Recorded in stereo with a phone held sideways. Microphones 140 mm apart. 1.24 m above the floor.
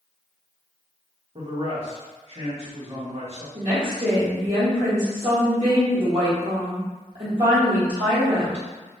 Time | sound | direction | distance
1.4 | a man speaking | 50° right (ahead or behind) | 1.2 m
3.5 | a woman speaking | 40° right (ahead or behind) | 1.0 m